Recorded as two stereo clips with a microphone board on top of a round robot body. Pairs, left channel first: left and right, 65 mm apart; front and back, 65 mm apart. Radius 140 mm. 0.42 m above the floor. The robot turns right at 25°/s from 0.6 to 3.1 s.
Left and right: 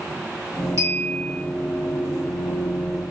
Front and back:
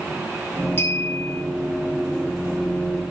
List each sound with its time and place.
0.8 s a clink: 50° right, 1.6 m; by 1.4 s 35° right, 1.6 m